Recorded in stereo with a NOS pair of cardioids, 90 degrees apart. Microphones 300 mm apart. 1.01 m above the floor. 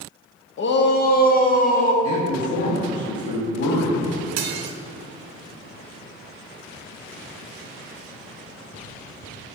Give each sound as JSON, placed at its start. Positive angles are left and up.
{"t": 0.6, "sound": "a shout", "azimuth_deg": 45, "distance_m": 0.7}
{"t": 2.0, "sound": "a man speaking", "azimuth_deg": 55, "distance_m": 1.4}
{"t": 4.4, "sound": "dishes clattering", "azimuth_deg": -65, "distance_m": 0.7}